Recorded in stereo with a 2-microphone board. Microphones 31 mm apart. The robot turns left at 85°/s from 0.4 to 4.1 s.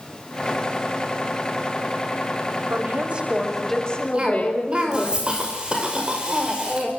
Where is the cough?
30° right (ahead or behind), 5.5 m.